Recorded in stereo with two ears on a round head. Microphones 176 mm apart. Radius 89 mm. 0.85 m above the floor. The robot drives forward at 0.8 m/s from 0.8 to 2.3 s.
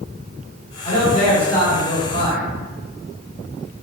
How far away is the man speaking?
About 1.1 m.